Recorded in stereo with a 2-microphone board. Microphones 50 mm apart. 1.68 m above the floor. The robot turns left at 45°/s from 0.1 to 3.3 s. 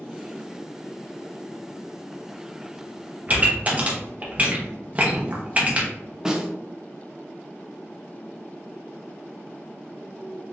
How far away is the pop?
About 0.9 m.